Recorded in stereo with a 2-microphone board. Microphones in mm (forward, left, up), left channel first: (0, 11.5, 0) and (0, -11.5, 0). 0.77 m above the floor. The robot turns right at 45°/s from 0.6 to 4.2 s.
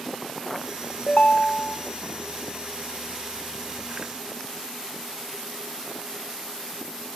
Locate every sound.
1.1 s a ringtone: 55° left, 0.7 m; by 1.8 s 85° left, 0.7 m